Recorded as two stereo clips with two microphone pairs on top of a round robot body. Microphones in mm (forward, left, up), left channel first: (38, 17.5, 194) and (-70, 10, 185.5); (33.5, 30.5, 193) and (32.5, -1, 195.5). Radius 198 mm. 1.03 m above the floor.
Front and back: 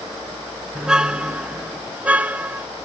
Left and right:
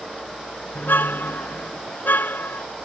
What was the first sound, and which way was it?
A car horn, 100° left.